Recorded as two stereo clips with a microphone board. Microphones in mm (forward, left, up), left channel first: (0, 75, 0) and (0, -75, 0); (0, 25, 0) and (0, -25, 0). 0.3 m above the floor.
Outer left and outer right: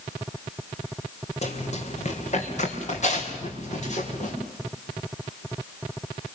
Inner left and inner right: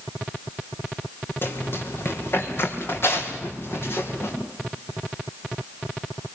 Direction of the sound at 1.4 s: 50° left (ahead or behind).